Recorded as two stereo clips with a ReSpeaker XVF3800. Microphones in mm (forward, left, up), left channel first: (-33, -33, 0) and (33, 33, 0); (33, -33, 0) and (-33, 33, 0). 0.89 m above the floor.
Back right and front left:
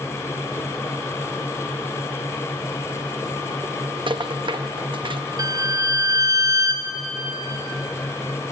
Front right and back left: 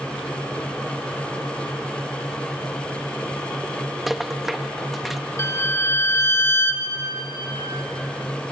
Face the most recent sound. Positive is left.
turn(degrees=10)